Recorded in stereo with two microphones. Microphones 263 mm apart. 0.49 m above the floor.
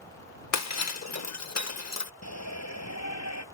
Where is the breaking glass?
80° left.